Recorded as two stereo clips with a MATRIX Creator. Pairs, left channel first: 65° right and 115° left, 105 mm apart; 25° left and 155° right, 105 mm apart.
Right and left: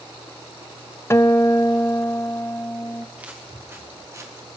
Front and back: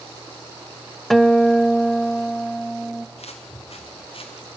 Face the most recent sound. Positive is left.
turn(degrees=55)